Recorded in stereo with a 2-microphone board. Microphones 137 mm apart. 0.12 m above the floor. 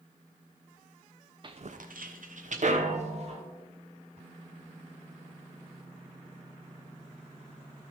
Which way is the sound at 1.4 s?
35° right (ahead or behind).